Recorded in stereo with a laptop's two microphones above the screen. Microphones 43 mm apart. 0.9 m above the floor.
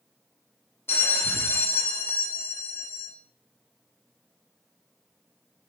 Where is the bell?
60° left (ahead or behind), 0.5 m.